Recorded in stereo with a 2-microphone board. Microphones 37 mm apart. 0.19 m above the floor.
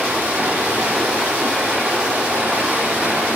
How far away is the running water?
About 4 m.